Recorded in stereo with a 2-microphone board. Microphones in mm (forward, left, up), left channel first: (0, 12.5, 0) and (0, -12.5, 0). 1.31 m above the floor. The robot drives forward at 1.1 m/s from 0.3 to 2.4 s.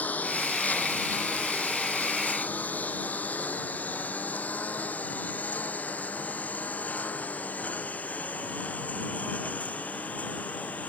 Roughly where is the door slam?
I don't hear a door slam.